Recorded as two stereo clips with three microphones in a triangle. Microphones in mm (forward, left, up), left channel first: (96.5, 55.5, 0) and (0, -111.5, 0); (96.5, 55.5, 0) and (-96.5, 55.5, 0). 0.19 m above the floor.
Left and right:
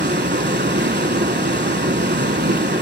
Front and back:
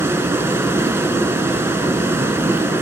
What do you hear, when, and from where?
0.0 s running water: 105° right, 0.8 m